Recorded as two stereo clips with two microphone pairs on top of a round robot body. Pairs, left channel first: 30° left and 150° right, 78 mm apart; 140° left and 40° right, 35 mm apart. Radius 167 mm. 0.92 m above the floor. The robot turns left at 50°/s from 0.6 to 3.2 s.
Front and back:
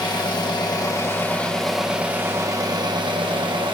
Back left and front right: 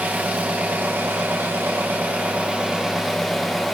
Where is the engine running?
5° right, 1.1 m; by 3.8 s 135° right, 1.1 m.